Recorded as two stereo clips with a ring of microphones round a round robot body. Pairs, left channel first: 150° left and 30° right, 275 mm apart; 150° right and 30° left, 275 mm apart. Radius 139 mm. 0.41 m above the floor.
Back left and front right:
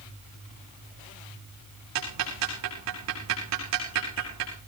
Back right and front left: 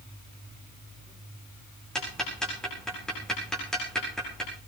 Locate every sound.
1.9 s ticking: 60° right, 8 m